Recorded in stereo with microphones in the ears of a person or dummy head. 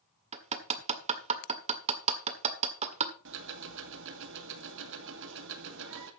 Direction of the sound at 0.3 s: 40° right (ahead or behind).